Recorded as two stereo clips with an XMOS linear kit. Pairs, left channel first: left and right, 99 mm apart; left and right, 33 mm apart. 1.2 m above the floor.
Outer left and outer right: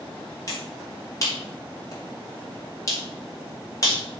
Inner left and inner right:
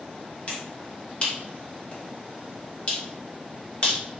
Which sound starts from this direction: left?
A finger snap, at 0.5 s.